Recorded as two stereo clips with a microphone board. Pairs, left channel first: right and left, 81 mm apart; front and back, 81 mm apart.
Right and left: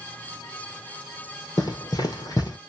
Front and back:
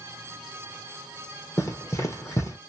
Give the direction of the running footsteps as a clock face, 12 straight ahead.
2 o'clock.